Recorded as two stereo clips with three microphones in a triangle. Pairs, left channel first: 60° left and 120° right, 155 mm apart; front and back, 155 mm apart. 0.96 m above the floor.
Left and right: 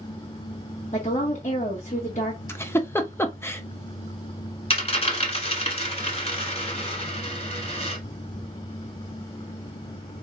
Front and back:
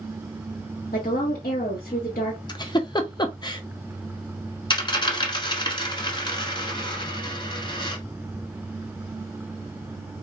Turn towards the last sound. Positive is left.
turn(degrees=40)